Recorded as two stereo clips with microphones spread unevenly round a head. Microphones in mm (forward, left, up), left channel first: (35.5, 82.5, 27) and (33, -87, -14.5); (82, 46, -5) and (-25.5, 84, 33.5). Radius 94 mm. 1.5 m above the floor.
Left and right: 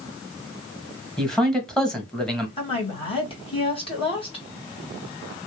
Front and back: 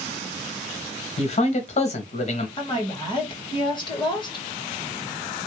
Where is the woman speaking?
30° left, 2 m.